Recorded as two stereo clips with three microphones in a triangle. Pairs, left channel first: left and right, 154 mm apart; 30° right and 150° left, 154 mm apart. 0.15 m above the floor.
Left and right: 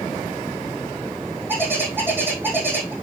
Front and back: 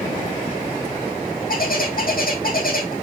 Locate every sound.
1.5 s a bird: 15° right, 2 m